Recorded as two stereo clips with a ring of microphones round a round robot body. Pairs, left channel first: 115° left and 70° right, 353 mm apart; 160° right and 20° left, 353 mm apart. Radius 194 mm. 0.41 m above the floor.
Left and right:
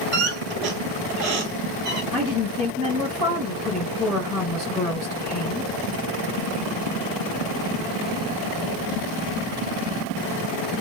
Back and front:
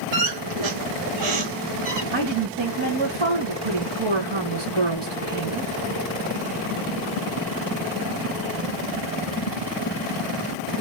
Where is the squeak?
5° right, 3 m.